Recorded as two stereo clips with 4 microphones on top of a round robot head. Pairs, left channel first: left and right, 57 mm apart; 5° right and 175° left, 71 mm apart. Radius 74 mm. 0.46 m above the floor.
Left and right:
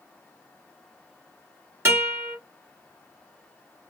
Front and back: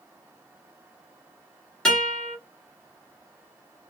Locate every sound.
1.9 s a guitar: 80° right, 1.6 m